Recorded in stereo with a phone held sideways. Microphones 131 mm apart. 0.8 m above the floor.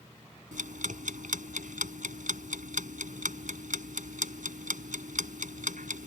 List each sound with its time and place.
0.5 s ticking: 75° right (ahead or behind)